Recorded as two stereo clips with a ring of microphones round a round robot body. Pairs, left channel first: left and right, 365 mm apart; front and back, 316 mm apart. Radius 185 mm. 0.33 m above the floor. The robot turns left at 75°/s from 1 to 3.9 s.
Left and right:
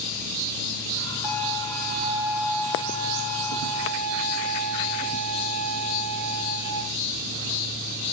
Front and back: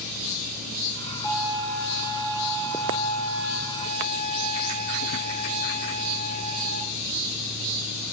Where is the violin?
100° right, 4 m; by 6.8 s 60° left, 4 m.